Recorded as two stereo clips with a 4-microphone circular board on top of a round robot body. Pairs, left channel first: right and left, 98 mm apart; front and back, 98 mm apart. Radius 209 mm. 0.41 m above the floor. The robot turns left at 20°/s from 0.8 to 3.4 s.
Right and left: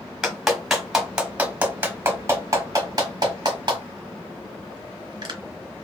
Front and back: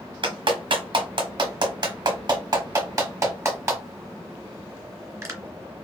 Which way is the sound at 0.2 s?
175° left.